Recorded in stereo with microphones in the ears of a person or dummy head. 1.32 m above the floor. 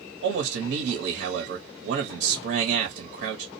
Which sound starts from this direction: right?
A man speaking, at 0.2 s.